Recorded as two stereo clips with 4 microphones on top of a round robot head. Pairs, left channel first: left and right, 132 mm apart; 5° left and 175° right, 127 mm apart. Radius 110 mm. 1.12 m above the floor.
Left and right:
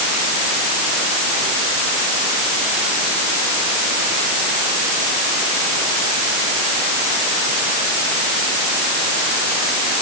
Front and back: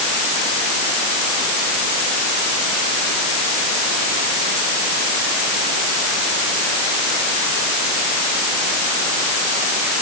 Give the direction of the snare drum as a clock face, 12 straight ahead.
No snare drum in this recording.